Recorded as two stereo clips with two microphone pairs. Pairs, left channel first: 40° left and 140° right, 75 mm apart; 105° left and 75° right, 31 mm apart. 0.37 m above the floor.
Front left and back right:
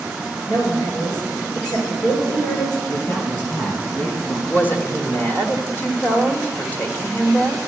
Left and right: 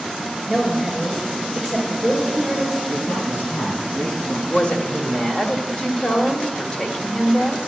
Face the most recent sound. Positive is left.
turn(degrees=75)